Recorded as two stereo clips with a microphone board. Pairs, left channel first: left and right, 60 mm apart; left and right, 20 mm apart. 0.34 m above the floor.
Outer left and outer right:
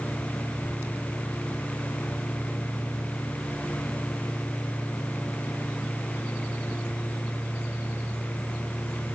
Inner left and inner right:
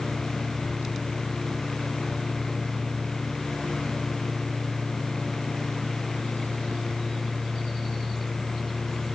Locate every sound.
Only background noise.